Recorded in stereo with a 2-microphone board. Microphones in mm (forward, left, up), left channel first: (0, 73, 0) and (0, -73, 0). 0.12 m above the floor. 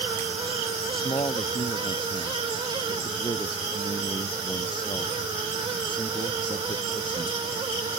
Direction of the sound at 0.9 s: 30° left (ahead or behind).